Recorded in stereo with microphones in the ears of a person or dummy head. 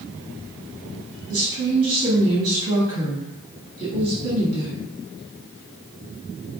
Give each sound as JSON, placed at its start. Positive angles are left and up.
{"t": 1.3, "sound": "a woman speaking", "side_deg": -75, "distance_m": 1.7}